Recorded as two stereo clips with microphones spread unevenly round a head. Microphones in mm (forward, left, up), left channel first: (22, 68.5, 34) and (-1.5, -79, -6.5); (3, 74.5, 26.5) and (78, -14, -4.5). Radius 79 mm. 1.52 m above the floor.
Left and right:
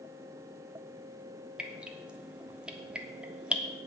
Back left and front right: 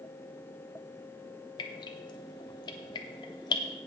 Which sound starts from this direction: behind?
Dripping, at 1.6 s.